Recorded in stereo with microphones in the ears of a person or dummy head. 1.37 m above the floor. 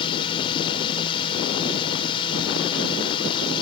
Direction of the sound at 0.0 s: 25° left (ahead or behind).